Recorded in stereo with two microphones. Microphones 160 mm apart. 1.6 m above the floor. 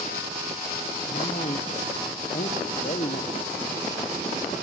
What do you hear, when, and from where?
1.1 s a man speaking: 50° left (ahead or behind), 1.4 m